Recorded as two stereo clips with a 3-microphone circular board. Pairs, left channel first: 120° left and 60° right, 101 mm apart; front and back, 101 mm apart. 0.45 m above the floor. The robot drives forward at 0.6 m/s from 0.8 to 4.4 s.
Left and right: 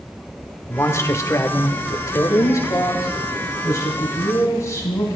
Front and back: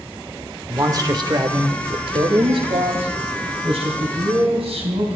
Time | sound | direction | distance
0.7 | a man speaking | 160° left | 1.0 m